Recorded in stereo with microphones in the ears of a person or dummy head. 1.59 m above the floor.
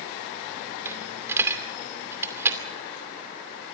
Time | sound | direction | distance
0.8 | a dropped coin | 15° right (ahead or behind) | 2.5 m